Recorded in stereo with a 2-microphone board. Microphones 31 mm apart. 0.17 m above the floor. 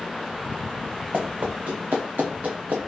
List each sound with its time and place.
1.1 s running footsteps: 55° right (ahead or behind), 1.1 m; by 2.8 s 70° right (ahead or behind), 1.1 m